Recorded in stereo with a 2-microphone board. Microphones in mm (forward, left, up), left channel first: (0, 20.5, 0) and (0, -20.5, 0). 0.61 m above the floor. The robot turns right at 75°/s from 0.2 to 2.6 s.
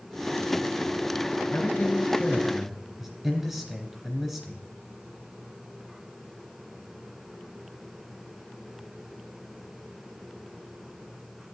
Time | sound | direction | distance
1.5 | a man speaking | 110° left | 3 m